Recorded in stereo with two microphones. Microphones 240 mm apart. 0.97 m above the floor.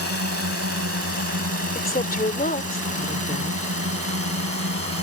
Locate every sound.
0.0 s a drone: 75° right (ahead or behind)
1.8 s a woman speaking: 40° left (ahead or behind)